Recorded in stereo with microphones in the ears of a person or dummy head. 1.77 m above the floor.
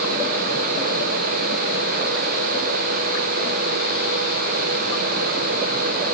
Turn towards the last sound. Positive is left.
No sound to turn to.